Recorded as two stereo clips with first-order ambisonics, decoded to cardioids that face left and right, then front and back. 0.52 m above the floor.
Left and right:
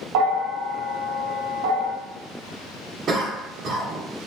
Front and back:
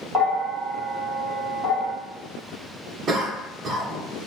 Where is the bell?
95° right, 1.0 m.